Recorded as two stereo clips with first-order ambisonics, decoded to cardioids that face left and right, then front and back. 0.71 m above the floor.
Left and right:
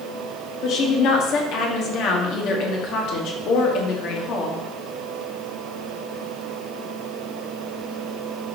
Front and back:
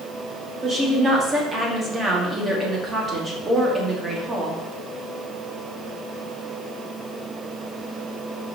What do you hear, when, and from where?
0.6 s a woman speaking: 115° left, 1.3 m